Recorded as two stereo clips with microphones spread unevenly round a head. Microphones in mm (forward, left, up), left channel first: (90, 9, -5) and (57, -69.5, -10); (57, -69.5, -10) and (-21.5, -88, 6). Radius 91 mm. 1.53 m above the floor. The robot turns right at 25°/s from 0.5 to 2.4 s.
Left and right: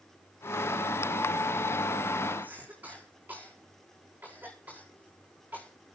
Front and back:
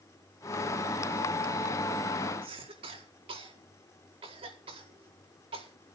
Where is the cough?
165° left, 4.5 m.